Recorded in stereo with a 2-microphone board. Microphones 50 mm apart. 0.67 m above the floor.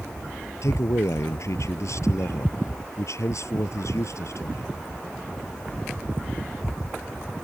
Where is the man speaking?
75° left (ahead or behind).